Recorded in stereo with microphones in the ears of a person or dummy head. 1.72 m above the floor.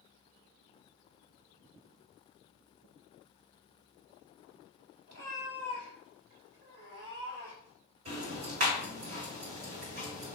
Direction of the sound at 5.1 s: 40° right (ahead or behind).